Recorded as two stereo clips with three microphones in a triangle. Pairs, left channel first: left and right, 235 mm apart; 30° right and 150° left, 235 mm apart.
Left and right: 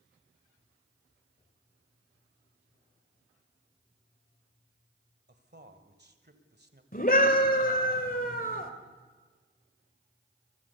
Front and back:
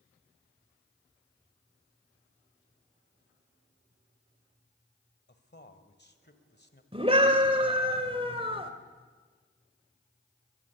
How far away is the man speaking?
About 1.7 m.